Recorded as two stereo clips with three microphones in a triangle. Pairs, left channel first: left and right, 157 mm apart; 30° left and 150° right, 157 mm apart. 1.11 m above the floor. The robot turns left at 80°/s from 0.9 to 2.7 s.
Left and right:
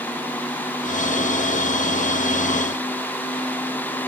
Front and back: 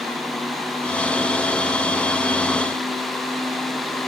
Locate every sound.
Only background noise.